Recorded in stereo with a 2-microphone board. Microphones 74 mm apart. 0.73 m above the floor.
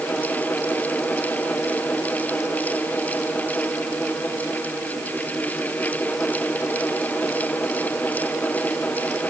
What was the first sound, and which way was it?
Only background noise.